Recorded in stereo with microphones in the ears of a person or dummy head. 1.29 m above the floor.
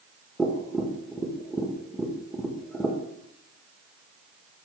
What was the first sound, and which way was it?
Tapping, centre (ahead or behind).